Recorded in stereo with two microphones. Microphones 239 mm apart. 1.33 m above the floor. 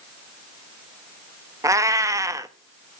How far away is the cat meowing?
About 0.7 m.